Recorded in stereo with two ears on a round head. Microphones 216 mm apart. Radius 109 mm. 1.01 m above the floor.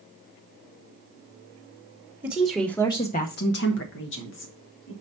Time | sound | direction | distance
2.2 | a woman speaking | 10° right (ahead or behind) | 1.2 m